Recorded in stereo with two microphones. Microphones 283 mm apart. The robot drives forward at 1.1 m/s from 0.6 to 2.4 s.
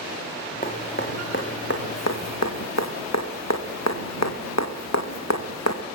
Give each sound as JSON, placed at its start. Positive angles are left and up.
{"t": 0.6, "sound": "dripping", "side_deg": 30, "distance_m": 2.0}